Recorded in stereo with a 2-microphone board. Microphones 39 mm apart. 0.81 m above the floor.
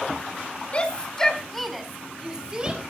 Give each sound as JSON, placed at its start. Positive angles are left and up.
{"t": 0.7, "sound": "a shout", "side_deg": 30, "distance_m": 2.0}